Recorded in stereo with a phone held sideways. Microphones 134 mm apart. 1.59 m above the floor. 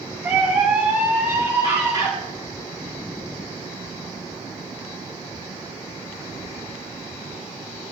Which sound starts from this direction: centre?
A scream, at 0.2 s.